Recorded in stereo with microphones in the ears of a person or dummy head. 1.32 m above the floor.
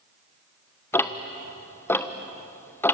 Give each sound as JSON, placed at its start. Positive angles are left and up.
{"t": 0.9, "sound": "ticking", "side_deg": 10, "distance_m": 1.1}